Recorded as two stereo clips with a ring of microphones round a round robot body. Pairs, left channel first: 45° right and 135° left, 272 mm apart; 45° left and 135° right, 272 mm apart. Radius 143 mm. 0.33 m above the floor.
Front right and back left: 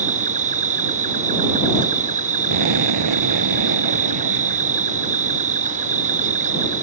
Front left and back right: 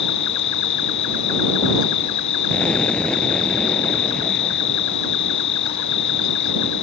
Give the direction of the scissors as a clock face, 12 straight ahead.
No scissors in this recording.